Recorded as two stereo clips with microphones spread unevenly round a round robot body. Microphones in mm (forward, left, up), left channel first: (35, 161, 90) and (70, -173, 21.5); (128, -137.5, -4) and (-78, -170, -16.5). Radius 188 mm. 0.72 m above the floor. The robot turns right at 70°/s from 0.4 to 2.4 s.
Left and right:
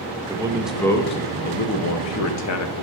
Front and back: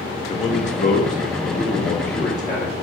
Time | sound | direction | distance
0.3 | a man speaking | 35° right | 0.5 m